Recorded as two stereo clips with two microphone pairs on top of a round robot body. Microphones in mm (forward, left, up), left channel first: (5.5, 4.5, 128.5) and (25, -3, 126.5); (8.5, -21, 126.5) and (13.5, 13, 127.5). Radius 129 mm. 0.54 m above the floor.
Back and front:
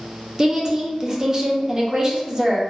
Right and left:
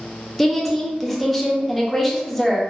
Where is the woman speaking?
20° right, 0.9 m.